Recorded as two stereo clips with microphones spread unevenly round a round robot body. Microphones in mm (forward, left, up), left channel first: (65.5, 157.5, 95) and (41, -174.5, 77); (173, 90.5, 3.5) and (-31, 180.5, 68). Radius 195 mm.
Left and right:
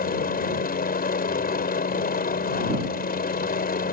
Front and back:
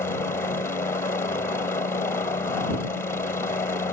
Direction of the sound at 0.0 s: 30° left.